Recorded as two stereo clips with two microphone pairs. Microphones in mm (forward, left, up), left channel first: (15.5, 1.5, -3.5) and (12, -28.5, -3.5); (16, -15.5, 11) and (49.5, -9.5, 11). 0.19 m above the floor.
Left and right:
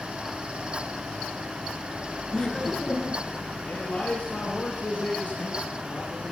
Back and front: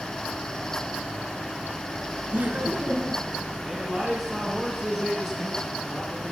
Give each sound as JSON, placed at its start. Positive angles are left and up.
{"t": 2.3, "sound": "laughter", "azimuth_deg": 15, "distance_m": 2.5}
{"t": 3.6, "sound": "a man speaking", "azimuth_deg": 65, "distance_m": 2.5}